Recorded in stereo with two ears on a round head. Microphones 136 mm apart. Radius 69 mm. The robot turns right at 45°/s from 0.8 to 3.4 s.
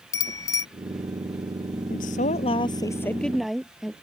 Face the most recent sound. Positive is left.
turn(degrees=180)